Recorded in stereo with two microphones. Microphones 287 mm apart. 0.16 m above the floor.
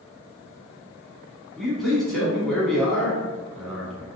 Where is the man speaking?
Centre (ahead or behind), 1.1 m.